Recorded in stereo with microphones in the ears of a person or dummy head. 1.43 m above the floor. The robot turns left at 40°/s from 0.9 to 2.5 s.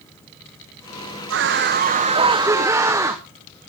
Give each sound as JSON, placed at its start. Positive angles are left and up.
{"t": 1.3, "sound": "a scream", "azimuth_deg": -115, "distance_m": 1.0}